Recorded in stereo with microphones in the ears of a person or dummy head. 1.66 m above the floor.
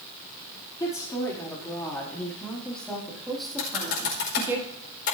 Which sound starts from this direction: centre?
A woman speaking, at 0.8 s.